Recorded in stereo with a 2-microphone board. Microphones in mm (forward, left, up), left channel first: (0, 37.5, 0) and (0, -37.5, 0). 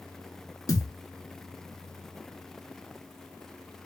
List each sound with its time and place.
0.7 s a thud: 55° left (ahead or behind), 0.7 m